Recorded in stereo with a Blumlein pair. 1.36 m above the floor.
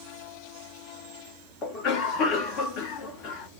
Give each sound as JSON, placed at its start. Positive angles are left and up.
{"t": 1.6, "sound": "a cough", "azimuth_deg": 35, "distance_m": 1.1}